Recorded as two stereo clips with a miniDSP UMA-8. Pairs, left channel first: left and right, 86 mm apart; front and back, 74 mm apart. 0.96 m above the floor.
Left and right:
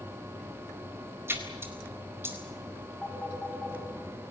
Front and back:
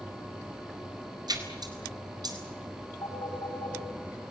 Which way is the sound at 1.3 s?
155° right.